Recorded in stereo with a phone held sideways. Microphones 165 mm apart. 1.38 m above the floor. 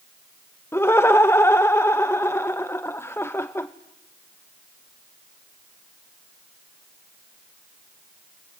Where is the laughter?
15° left (ahead or behind), 0.7 m.